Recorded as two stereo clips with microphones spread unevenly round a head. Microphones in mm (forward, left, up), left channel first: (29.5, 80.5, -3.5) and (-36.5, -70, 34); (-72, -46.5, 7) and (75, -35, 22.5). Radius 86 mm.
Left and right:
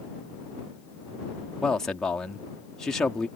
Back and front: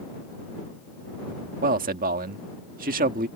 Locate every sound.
1.6 s a man speaking: 15° right